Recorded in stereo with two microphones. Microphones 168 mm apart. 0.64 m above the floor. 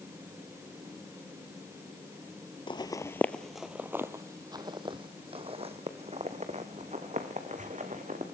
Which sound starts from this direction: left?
Footsteps, at 2.7 s.